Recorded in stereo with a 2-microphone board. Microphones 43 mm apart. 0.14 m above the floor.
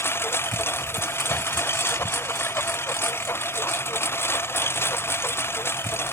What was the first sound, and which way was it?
A lawn mower, 80° left.